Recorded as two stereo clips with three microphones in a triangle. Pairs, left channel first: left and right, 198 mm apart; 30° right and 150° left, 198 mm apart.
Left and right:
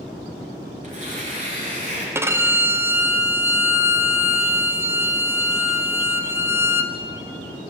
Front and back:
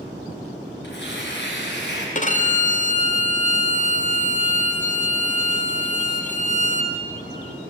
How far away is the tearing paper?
About 2.5 m.